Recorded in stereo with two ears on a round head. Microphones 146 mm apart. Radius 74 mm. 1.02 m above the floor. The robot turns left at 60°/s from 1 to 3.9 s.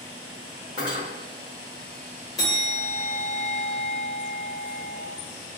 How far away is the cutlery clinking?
About 1.6 m.